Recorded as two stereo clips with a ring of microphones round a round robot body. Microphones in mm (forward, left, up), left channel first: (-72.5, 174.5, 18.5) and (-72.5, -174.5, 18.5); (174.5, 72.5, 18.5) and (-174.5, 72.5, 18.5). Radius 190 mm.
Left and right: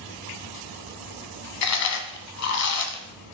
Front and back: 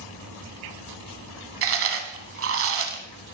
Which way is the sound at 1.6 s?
130° left.